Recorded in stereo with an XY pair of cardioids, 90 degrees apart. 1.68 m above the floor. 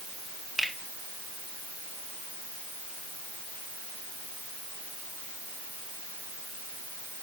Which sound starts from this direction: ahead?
A finger snap, at 0.6 s.